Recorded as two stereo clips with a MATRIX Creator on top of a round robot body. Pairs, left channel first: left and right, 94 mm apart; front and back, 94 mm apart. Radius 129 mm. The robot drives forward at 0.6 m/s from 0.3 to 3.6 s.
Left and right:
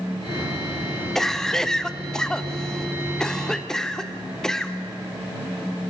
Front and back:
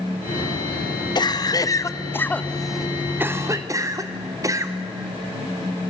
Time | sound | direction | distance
1.1 | a cough | 5° left | 1.3 m